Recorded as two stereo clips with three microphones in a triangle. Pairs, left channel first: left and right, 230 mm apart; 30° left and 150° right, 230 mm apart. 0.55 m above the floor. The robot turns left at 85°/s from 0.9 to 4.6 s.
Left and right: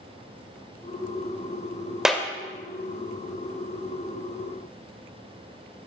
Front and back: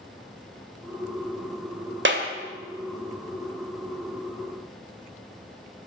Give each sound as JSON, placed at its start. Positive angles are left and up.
{"t": 2.0, "sound": "a clap", "azimuth_deg": 180, "distance_m": 1.5}